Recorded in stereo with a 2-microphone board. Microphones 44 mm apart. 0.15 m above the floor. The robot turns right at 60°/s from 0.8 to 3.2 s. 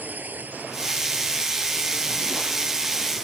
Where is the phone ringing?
I don't hear a phone ringing.